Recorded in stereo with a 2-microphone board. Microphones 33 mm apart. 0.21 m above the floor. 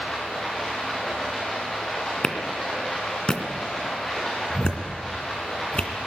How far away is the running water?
About 8 m.